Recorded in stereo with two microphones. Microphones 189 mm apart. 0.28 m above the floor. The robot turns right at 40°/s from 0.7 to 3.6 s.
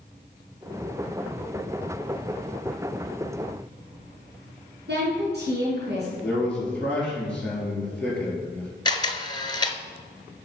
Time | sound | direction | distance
4.9 | a woman speaking | 65° right (ahead or behind) | 3.5 m
6.2 | a man speaking | 5° left (ahead or behind) | 4.5 m
8.8 | a camera shutter | 25° left (ahead or behind) | 0.8 m